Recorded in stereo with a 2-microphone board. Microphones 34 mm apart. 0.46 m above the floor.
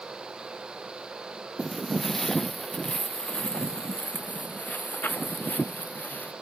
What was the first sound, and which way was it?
Footsteps, 5° left (ahead or behind).